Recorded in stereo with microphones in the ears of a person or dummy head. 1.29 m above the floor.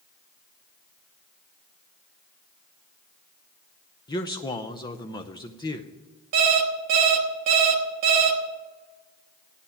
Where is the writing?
I don't hear writing.